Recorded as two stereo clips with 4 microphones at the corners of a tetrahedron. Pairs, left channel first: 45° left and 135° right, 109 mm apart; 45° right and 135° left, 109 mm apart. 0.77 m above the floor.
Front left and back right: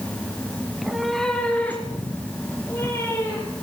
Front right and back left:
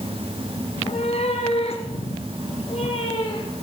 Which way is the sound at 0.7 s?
60° right.